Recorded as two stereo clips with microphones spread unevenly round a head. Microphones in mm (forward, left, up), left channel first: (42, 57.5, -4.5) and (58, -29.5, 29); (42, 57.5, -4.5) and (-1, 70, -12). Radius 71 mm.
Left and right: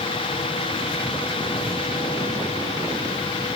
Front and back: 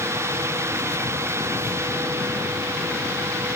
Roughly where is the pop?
No pop in this recording.